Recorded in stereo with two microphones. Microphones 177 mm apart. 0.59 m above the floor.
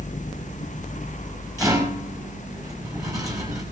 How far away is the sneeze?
I don't hear a sneeze.